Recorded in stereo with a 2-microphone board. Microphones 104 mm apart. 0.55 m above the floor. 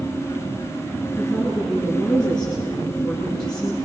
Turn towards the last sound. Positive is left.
turn(degrees=40)  # may be behind; listen again after turning